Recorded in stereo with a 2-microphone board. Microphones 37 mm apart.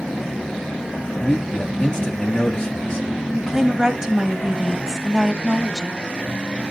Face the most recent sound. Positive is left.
turn(degrees=-15)  # may be behind; listen again after turning